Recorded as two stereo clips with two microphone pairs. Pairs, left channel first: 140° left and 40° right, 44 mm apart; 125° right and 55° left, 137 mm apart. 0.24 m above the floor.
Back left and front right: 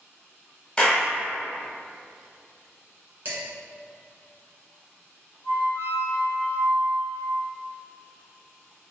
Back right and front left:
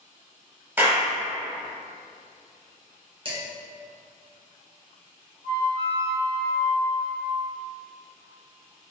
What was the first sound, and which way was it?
A clap, 110° left.